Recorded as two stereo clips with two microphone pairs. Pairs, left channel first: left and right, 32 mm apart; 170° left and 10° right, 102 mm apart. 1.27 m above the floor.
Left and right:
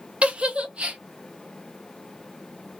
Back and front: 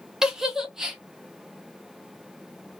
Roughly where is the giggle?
Right.